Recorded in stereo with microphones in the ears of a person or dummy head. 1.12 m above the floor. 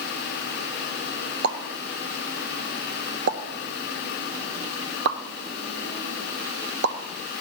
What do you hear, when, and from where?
1.4 s a pop: 55° right (ahead or behind), 0.8 m